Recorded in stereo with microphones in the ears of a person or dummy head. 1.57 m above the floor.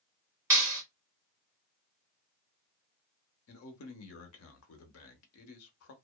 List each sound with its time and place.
0.5 s a clap: 20° right (ahead or behind), 1.4 m
3.5 s a man speaking: 75° left (ahead or behind), 0.8 m